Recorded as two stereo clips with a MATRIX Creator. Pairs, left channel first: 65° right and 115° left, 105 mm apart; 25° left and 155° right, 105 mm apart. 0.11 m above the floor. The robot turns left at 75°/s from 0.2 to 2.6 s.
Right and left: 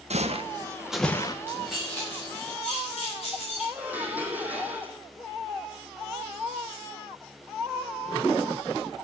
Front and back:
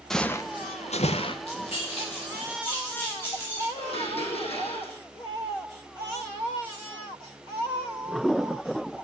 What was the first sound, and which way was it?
Footsteps, 110° left.